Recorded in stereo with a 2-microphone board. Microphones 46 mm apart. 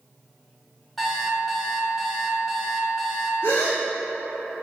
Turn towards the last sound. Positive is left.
turn(degrees=70)  # may be behind; listen again after turning